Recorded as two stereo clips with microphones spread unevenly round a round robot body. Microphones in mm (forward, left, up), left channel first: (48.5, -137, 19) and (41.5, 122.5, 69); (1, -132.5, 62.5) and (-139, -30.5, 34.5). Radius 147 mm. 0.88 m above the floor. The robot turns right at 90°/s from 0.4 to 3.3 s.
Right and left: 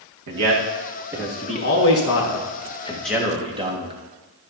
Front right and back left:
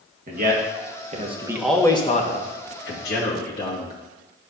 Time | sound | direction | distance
0.3 | a man speaking | 115° left | 1.7 m